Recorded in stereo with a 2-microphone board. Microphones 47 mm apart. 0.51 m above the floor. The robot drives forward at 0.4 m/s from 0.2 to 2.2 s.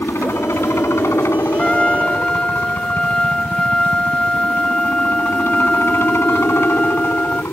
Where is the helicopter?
70° left (ahead or behind).